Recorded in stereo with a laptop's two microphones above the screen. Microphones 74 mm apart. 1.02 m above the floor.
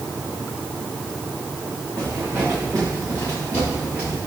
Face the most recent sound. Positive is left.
turn(degrees=30)  # may be behind; listen again after turning